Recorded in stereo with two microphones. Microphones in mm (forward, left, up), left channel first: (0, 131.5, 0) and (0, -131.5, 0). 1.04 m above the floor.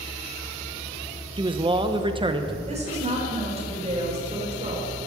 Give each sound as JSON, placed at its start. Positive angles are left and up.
{"t": 1.4, "sound": "a man speaking", "side_deg": -20, "distance_m": 0.9}
{"t": 2.7, "sound": "a woman speaking", "side_deg": -25, "distance_m": 4.0}